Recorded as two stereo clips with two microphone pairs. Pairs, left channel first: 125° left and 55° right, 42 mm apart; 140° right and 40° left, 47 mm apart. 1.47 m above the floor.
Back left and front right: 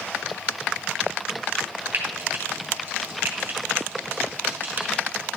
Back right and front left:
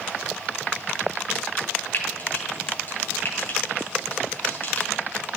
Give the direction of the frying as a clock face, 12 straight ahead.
3 o'clock.